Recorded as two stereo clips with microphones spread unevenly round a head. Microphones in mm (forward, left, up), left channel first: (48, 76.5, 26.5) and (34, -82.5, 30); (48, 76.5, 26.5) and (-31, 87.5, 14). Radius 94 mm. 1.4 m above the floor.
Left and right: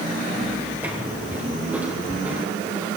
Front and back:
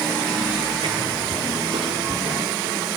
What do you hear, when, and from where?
0.8 s footsteps: 175° right, 2 m